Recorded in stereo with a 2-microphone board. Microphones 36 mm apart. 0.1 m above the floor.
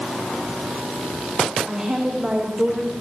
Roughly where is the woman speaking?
Right.